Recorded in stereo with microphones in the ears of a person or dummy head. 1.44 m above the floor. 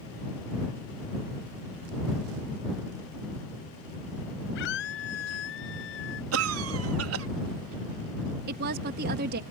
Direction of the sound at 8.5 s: 55° right (ahead or behind).